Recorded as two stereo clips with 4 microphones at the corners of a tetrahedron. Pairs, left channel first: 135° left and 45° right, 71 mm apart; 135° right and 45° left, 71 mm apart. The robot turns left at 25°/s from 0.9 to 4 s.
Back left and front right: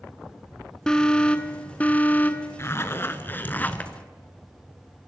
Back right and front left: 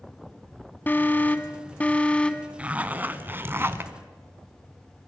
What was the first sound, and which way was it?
An alarm, 155° right.